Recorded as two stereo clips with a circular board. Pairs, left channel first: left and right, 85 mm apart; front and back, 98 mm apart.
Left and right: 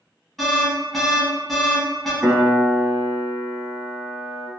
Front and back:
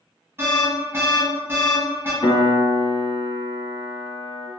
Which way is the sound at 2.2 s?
25° right.